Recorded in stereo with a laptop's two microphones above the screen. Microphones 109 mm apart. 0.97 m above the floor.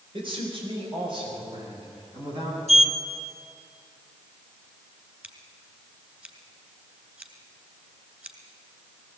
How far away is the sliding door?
About 1.3 m.